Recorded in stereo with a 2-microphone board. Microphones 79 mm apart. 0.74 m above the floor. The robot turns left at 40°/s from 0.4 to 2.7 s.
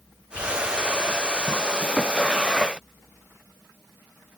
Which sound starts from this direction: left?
Whispering, at 0.3 s.